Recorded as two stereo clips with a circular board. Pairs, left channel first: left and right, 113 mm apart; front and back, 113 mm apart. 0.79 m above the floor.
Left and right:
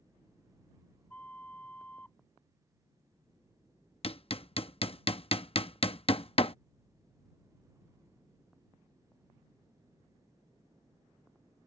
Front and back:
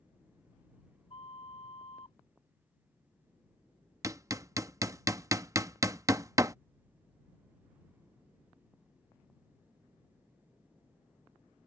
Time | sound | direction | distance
1.1 | a flute | 15° left | ?
4.0 | hammering | 120° left | ?